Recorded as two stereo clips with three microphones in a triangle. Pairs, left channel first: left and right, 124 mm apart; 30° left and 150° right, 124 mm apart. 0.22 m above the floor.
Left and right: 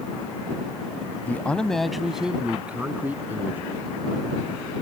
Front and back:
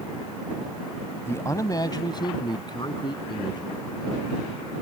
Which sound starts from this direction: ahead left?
A man speaking, at 1.2 s.